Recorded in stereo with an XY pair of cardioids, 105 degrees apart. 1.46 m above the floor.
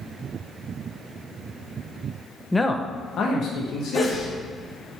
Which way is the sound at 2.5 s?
10° left.